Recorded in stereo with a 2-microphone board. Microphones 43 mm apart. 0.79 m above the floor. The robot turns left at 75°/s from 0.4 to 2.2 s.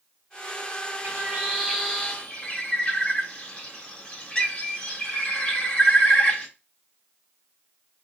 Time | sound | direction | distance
1.0 | a bird | 120° right | 1.4 m